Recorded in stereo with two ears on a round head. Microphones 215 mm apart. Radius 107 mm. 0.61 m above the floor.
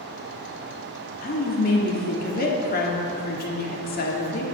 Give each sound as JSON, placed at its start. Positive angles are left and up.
{"t": 1.2, "sound": "a woman speaking", "side_deg": 40, "distance_m": 1.5}